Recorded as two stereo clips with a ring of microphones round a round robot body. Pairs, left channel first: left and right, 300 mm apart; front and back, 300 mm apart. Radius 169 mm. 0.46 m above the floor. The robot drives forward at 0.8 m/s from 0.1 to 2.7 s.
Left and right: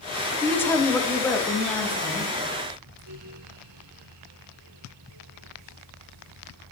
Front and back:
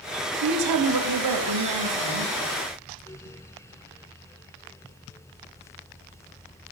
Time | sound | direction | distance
0.4 | a woman speaking | 170° left | 1.5 m